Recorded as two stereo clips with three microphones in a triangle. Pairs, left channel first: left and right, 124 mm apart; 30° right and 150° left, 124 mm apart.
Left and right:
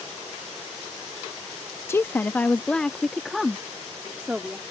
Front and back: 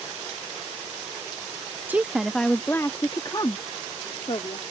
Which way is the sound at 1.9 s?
105° left.